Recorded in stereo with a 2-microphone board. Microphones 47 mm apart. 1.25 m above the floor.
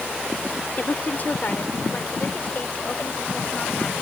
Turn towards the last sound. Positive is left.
turn(degrees=30)  # may be behind; listen again after turning